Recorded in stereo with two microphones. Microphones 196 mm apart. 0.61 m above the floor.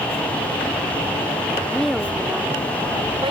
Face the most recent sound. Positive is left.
turn(degrees=-30)  # may be behind; listen again after turning